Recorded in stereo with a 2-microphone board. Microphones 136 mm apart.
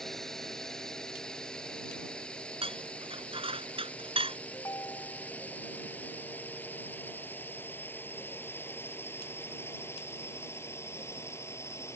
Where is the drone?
Centre (ahead or behind); by 12.0 s 20° left (ahead or behind).